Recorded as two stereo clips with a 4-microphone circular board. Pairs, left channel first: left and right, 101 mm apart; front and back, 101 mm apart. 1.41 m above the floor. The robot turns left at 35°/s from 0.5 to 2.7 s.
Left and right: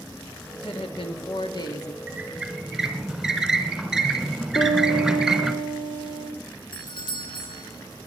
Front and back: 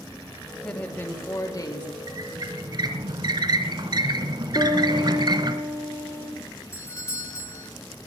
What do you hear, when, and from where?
0.5 s a woman speaking: 85° left, 2 m; by 2.0 s 35° left, 2 m
2.1 s a squeak: 155° right, 1.6 m; by 5.5 s 175° right, 1.6 m
4.5 s a piano: 60° left, 5.5 m
6.7 s a doorbell: 60° left, 1.7 m